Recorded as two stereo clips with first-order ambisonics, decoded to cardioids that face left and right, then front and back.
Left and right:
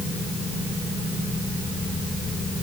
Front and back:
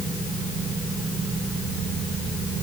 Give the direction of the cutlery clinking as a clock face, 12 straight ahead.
No cutlery clinking in this recording.